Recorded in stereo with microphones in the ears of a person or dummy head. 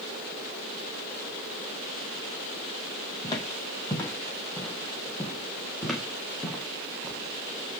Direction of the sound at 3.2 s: 25° left (ahead or behind).